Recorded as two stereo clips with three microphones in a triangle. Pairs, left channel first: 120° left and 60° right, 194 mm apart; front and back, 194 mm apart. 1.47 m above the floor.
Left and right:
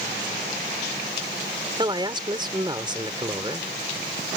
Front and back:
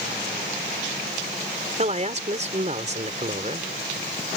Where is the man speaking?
125° right.